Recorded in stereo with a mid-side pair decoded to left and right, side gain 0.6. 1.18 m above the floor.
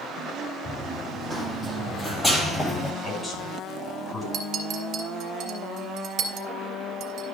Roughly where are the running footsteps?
Ahead.